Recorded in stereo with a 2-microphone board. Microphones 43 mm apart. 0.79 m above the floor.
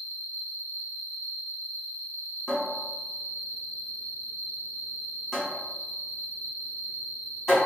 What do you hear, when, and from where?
0.0 s an insect: 60° left (ahead or behind), 0.9 m
2.5 s a cupboard door: centre (ahead or behind), 1.9 m